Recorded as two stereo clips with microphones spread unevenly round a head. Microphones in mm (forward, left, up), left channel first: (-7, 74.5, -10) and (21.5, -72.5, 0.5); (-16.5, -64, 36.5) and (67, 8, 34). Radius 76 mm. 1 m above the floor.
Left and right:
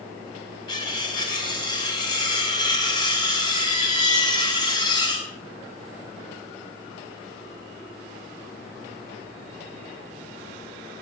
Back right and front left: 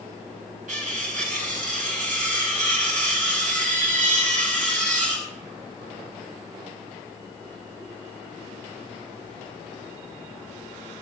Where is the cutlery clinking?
40° left, 4.5 m.